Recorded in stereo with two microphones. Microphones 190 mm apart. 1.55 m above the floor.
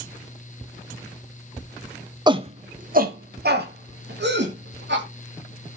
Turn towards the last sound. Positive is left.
turn(degrees=-70)  # may be behind; listen again after turning